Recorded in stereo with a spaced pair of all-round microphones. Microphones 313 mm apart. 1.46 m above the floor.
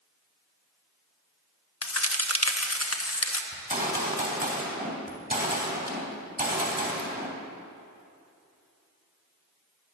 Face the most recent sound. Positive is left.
turn(degrees=-25)  # may be behind; listen again after turning